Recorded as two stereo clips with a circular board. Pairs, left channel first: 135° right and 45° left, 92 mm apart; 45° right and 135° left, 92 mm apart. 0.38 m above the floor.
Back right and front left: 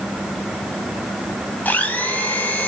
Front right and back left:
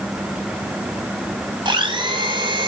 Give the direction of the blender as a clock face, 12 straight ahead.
7 o'clock.